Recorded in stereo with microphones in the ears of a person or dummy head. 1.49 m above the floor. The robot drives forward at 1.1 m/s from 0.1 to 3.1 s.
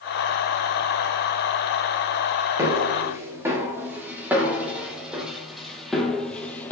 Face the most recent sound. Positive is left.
turn(degrees=10)  # may be behind; listen again after turning